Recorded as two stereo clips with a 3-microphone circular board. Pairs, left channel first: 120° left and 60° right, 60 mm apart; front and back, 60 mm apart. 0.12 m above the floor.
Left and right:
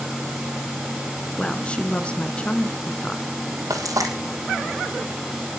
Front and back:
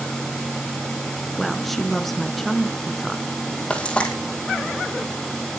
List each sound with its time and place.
1.4 s a woman speaking: 85° left, 1.1 m
3.7 s frying: 70° right, 3 m